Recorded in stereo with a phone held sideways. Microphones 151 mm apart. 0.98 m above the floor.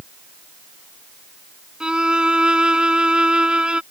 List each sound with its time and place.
1.8 s a violin: 5° right (ahead or behind)